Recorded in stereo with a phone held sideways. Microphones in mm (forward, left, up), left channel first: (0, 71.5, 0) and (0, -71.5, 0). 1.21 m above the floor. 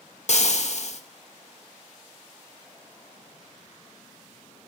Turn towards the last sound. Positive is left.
turn(degrees=55)  # may be behind; listen again after turning